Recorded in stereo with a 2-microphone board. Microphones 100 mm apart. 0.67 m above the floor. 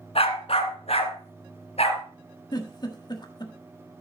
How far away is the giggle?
About 1.4 m.